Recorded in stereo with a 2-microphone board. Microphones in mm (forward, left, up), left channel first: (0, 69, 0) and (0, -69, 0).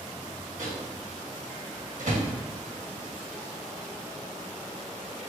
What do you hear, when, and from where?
0.6 s a microwave: 65° right (ahead or behind), 1.8 m